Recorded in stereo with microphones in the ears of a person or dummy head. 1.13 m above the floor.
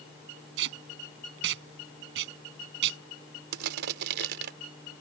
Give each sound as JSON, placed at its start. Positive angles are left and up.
{"t": 0.6, "sound": "tape being pulled", "side_deg": -70}
{"t": 3.5, "sound": "crushing", "side_deg": -65}